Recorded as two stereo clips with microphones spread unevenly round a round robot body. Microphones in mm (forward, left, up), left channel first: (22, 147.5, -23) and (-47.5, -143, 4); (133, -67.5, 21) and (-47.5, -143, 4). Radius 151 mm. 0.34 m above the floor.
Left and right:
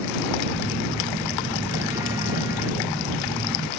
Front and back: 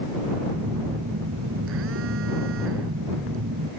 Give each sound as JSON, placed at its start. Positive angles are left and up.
{"t": 0.5, "sound": "a phone buzzing", "azimuth_deg": 175}